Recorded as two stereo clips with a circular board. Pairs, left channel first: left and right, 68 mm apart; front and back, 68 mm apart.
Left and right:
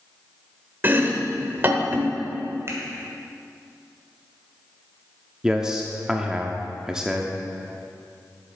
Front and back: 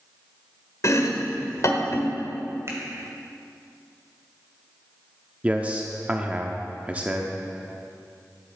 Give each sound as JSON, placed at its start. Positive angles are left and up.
{"t": 0.8, "sound": "chopping", "azimuth_deg": -35, "distance_m": 1.0}
{"t": 2.7, "sound": "a finger snap", "azimuth_deg": -135, "distance_m": 2.0}
{"t": 5.4, "sound": "a man speaking", "azimuth_deg": -155, "distance_m": 0.7}